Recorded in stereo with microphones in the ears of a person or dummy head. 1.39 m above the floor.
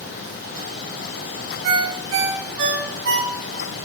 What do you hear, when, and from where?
1.6 s a ringtone: 75° right (ahead or behind), 2.5 m